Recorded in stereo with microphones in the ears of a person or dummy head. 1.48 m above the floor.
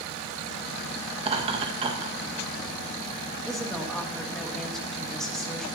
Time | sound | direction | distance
1.2 | laughter | 30° right (ahead or behind) | 1.7 m
3.5 | a woman speaking | centre (ahead or behind) | 2.5 m